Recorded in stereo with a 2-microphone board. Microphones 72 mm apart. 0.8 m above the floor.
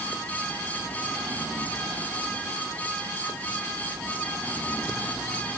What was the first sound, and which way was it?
Only background noise.